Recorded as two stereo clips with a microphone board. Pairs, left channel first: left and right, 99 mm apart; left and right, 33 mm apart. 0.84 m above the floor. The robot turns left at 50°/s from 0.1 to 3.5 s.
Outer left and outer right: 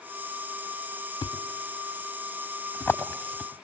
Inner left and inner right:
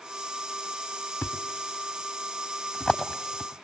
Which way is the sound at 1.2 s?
70° left (ahead or behind).